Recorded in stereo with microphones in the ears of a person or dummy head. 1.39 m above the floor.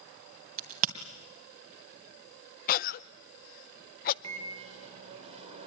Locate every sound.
0.6 s a crack: 40° right (ahead or behind), 2.5 m
2.7 s a cough: 50° left (ahead or behind), 0.6 m
4.2 s a microwave: 35° right (ahead or behind), 4 m